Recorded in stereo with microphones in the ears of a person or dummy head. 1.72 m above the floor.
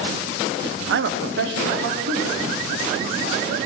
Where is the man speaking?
70° right (ahead or behind), 0.7 m; by 3.5 s 55° right (ahead or behind), 4 m.